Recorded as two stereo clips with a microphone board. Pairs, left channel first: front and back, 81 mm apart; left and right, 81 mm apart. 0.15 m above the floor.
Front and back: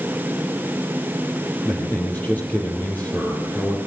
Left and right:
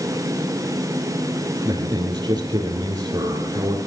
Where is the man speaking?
70° right, 3.5 m.